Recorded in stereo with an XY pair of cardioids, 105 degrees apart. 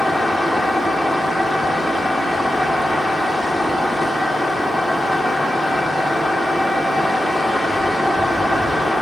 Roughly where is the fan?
Ahead.